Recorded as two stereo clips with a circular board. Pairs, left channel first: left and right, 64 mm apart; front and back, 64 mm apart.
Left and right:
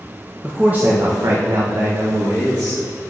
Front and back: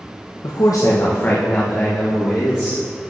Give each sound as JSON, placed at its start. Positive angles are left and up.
{"t": 0.4, "sound": "a man speaking", "azimuth_deg": -10, "distance_m": 0.8}